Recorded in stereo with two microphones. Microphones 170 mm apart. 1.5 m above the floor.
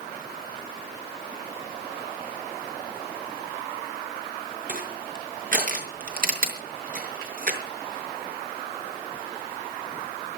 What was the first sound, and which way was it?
Crushing, 55° right (ahead or behind).